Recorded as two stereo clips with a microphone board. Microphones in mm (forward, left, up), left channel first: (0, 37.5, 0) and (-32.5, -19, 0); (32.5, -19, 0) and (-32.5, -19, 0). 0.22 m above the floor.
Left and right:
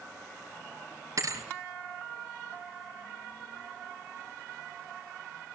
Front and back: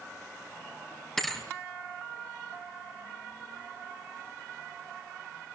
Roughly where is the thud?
Right.